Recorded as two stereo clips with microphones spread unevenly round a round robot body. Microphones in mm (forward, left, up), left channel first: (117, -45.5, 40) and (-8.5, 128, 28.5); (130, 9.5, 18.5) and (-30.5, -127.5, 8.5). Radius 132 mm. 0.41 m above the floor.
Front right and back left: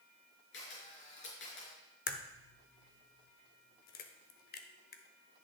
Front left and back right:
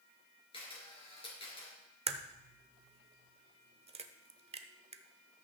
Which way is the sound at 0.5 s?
25° right.